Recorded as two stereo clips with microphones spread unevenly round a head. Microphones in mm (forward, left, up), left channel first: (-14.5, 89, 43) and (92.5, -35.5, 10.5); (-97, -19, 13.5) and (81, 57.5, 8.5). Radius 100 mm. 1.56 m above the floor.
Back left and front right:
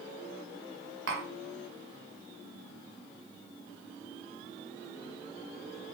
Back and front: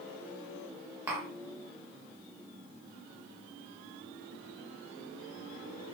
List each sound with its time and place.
1.1 s tapping: 55° right, 0.7 m